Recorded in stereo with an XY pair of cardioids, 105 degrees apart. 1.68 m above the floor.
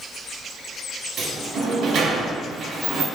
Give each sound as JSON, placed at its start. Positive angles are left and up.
{"t": 1.2, "sound": "a sliding door", "azimuth_deg": -60, "distance_m": 0.8}